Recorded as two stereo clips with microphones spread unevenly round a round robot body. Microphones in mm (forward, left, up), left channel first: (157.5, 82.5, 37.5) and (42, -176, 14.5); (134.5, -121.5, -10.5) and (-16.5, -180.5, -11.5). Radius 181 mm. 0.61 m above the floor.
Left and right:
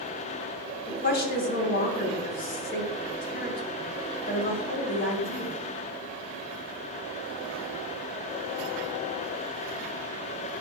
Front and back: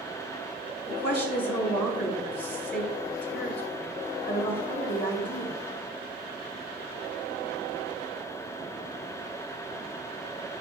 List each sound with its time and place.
0.9 s a woman speaking: 15° left, 3.5 m